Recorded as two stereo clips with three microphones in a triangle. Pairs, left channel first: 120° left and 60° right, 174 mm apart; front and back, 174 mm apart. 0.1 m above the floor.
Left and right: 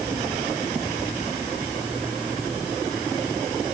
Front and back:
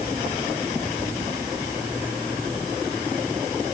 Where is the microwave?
No microwave in this recording.